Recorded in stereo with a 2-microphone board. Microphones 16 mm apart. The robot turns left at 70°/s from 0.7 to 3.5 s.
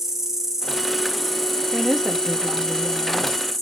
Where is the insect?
145° right, 1.3 m; by 3.6 s 15° left, 1.3 m.